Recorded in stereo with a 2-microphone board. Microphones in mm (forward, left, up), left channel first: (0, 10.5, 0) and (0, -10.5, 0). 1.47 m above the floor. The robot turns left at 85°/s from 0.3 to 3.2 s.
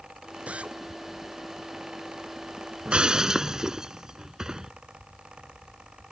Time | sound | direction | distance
0.5 | a drill | 90° right | ?
2.9 | breaking glass | 60° right (ahead or behind) | ?